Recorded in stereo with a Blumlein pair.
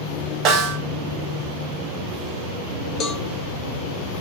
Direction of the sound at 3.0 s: 25° left.